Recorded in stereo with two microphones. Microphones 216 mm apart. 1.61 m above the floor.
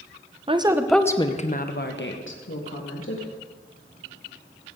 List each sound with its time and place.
0.5 s a woman speaking: 25° right (ahead or behind), 1.0 m; by 3.3 s 75° left (ahead or behind), 2.5 m